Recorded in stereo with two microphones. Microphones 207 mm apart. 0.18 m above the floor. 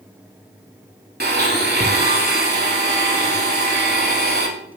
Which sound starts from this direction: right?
A blender, at 1.2 s.